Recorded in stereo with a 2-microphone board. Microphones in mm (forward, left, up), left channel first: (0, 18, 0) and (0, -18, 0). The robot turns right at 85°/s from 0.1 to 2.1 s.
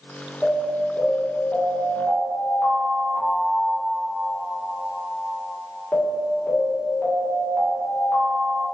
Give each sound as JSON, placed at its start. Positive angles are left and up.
{"t": 0.4, "sound": "an alarm", "azimuth_deg": -15, "distance_m": 1.8}